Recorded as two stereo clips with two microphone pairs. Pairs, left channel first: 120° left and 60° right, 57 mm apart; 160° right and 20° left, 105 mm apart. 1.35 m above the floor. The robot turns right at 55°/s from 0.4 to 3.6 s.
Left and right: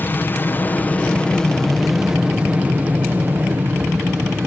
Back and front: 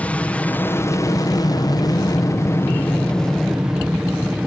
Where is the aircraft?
130° left; by 4.5 s 60° right.